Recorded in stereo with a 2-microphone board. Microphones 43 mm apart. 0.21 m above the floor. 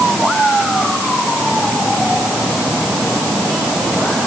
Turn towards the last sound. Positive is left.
No sound to turn to.